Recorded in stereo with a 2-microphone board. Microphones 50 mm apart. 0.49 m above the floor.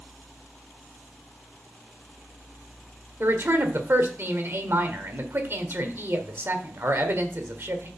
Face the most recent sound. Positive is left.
turn(degrees=-55)  # may be behind; listen again after turning